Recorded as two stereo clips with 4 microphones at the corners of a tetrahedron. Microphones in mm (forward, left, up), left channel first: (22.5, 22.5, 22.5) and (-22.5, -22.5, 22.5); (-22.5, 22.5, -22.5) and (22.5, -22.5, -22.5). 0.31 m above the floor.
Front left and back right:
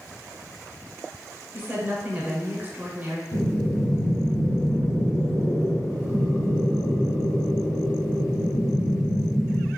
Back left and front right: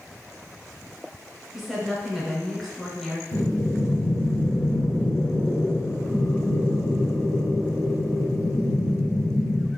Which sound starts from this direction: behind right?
A woman speaking, at 1.5 s.